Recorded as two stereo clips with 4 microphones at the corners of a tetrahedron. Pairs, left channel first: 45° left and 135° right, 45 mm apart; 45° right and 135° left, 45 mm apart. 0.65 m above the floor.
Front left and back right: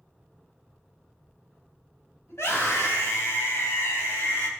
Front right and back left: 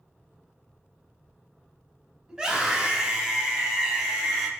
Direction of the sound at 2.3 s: 55° left.